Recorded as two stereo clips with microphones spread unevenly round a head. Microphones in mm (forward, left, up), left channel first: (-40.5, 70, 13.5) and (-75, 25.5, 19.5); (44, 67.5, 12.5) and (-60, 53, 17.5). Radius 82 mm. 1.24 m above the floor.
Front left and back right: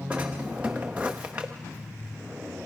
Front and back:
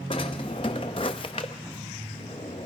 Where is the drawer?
50° right, 0.7 m.